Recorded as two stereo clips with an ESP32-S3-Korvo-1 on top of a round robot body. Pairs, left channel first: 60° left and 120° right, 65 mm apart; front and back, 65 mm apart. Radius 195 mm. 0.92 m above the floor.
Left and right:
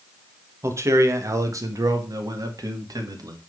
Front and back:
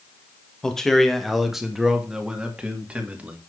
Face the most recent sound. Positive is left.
turn(degrees=-110)